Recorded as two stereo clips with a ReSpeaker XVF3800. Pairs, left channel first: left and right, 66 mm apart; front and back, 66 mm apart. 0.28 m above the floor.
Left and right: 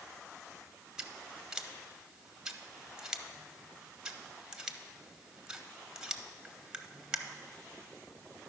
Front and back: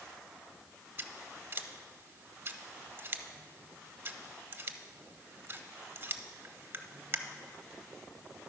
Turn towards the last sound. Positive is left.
turn(degrees=-165)